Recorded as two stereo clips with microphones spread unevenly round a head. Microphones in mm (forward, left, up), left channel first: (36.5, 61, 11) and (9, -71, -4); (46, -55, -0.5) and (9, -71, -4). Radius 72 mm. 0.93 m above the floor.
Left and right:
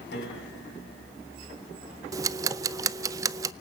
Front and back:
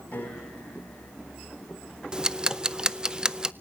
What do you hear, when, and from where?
0.1 s a piano: 100° left, 7 m
2.1 s ticking: 120° right, 0.7 m